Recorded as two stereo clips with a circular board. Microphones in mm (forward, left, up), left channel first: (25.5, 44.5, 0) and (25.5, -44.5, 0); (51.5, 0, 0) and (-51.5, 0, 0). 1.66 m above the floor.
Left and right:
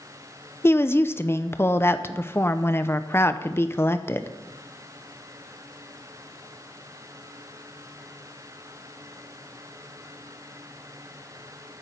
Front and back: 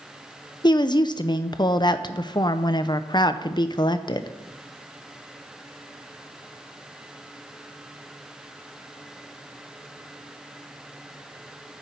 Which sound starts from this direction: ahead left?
A woman speaking, at 0.6 s.